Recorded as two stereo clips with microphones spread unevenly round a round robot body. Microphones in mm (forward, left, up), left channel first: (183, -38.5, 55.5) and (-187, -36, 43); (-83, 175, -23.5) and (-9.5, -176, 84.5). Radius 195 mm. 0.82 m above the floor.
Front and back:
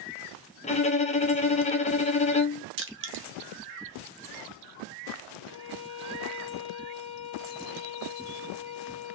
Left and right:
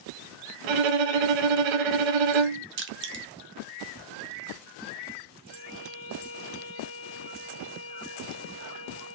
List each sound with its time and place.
0.6 s a violin: 75° right, 0.7 m
2.8 s crushing: 120° right, 0.7 m
5.5 s a violin: 60° left, 0.7 m